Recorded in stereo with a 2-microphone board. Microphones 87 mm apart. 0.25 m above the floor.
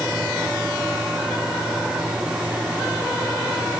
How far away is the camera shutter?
No camera shutter in this recording.